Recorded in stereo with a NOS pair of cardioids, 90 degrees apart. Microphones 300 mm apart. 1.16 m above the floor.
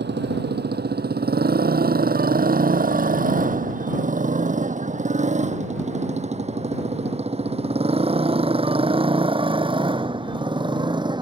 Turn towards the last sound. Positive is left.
turn(degrees=-15)